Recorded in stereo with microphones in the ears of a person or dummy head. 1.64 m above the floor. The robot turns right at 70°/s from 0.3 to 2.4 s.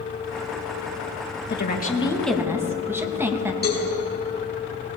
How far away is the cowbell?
About 4 m.